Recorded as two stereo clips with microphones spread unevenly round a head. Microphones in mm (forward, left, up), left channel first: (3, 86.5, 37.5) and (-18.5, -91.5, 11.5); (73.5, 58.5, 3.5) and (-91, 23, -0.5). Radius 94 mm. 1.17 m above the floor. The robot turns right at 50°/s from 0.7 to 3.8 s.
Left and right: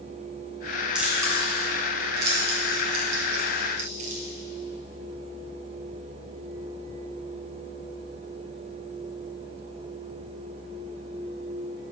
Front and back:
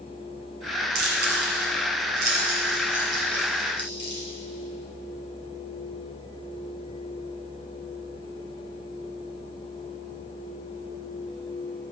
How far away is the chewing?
About 2.0 m.